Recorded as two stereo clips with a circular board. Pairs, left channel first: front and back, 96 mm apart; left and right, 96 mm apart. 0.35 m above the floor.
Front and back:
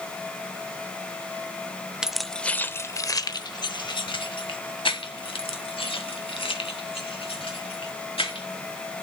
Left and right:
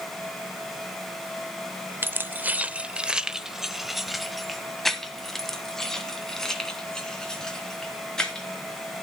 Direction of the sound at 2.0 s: 110° right.